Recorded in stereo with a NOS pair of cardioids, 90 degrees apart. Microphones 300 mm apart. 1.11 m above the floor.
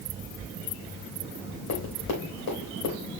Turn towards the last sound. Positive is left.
turn(degrees=65)